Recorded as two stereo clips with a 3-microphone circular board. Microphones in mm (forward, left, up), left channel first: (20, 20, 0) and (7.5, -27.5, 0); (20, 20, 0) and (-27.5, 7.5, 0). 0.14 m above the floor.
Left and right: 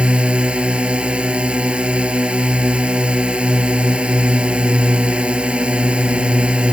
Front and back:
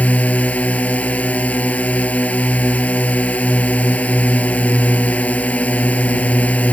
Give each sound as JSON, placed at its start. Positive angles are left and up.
{"t": 0.0, "sound": "a drone", "azimuth_deg": -40}